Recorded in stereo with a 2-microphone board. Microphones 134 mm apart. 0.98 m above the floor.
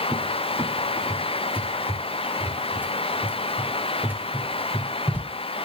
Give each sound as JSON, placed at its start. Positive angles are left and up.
{"t": 0.1, "sound": "a cupboard door", "side_deg": -15, "distance_m": 1.4}